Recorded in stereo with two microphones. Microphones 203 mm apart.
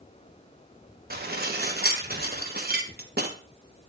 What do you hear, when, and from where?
1.1 s dishes clattering: 50° right (ahead or behind), 1.0 m